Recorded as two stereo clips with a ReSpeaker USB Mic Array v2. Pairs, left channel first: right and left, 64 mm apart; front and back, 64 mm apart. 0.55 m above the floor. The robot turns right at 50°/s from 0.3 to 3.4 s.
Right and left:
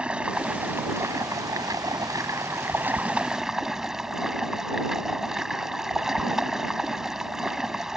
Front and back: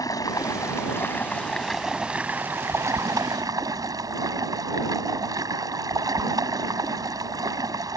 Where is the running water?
15° left; by 8.0 s 170° left.